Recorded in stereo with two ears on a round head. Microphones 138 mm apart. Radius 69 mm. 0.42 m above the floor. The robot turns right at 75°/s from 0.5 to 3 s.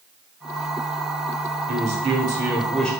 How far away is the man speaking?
About 1.3 m.